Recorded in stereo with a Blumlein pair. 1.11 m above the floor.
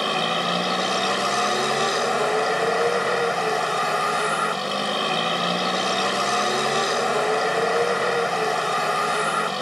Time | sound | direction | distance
0.0 | a vehicle | straight ahead | ?